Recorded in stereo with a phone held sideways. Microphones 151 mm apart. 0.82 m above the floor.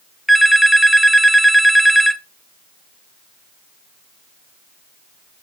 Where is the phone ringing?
Centre (ahead or behind), 0.7 m.